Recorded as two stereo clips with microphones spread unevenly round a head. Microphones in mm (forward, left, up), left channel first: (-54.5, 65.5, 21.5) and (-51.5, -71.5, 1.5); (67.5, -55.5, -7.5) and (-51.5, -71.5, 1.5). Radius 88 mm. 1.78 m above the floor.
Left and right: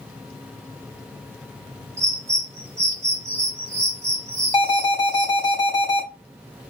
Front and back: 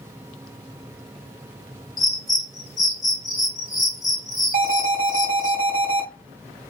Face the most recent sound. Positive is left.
turn(degrees=155)